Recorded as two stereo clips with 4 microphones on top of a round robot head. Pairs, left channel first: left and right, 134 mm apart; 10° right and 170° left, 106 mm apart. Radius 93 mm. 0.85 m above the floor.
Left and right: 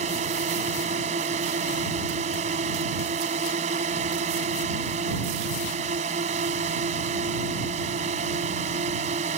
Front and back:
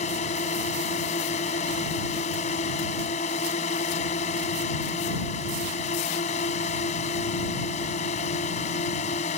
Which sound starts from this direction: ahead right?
A drone, at 0.0 s.